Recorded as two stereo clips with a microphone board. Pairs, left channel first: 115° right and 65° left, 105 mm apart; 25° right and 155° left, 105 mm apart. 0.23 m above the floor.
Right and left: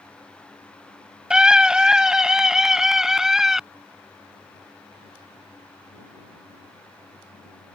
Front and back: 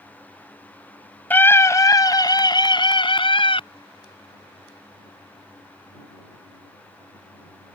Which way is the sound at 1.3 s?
Straight ahead.